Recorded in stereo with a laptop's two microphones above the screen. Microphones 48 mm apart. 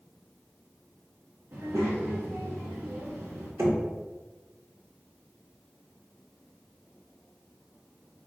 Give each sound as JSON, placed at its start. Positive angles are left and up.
{"t": 1.5, "sound": "a child speaking", "side_deg": -55, "distance_m": 0.8}
{"t": 3.6, "sound": "knocking", "side_deg": -70, "distance_m": 1.2}